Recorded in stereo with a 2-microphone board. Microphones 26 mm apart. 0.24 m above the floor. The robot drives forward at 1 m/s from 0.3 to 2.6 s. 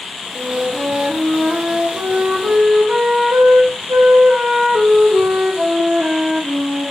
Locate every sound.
0.3 s a flute: 60° right (ahead or behind), 4.5 m; by 6.9 s 85° right, 4 m